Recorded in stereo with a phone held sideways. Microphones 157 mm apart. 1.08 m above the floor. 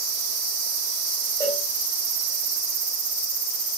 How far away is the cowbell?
About 4 m.